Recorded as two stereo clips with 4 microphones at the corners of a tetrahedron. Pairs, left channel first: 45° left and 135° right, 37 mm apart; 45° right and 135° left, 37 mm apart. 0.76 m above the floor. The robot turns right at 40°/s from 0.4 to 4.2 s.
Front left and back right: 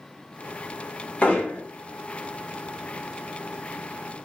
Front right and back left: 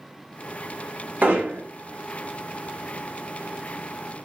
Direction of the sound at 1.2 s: 100° left.